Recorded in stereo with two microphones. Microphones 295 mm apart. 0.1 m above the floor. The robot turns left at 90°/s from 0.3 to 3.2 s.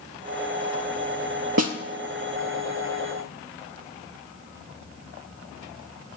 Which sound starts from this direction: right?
A snare drum, at 1.6 s.